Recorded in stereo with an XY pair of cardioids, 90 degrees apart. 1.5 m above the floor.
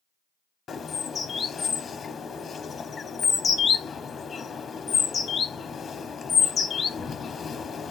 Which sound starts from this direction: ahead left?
A bird, at 0.7 s.